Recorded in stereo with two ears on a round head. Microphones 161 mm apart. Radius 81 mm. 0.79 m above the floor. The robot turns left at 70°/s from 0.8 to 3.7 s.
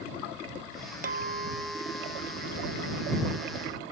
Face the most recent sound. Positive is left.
turn(degrees=45)